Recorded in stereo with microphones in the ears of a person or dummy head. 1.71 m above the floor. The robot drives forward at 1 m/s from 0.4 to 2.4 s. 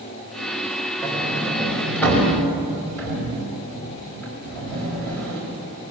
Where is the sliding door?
10° left (ahead or behind), 5 m; by 5.4 s 5° left (ahead or behind), 6.5 m.